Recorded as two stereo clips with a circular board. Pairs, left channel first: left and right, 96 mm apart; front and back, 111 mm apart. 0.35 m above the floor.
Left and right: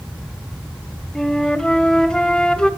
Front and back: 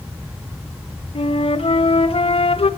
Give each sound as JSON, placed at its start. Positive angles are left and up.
{"t": 1.1, "sound": "a flute", "azimuth_deg": 10, "distance_m": 0.8}